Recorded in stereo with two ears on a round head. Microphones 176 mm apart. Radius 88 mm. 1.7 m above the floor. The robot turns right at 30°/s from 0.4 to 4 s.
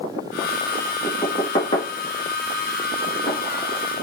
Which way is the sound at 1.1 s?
10° left (ahead or behind).